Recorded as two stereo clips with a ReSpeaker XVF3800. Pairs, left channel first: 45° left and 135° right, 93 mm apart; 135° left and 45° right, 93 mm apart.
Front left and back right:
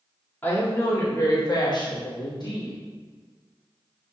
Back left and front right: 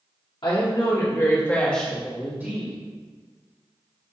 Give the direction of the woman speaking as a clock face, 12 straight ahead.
8 o'clock.